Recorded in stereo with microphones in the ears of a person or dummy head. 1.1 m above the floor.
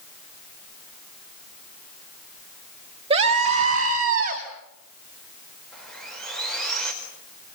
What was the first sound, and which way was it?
A scream, 35° right (ahead or behind).